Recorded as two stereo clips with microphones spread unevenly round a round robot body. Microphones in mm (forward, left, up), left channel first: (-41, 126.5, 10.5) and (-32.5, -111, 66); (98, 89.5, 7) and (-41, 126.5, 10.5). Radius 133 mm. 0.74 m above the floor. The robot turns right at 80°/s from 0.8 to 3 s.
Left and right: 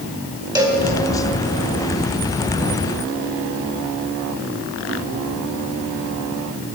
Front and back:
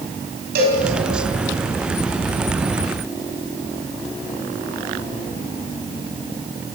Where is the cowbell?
165° right, 3.5 m; by 0.8 s 160° right, 3.5 m.